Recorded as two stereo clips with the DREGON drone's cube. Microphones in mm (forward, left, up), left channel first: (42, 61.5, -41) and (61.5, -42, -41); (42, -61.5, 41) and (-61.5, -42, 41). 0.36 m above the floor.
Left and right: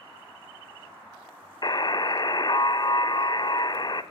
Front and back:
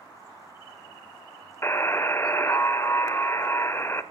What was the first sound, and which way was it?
A buzzer, 50° left.